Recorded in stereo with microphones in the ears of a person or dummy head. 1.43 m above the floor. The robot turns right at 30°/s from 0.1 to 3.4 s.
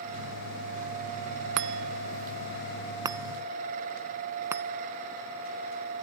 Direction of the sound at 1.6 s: 65° right (ahead or behind).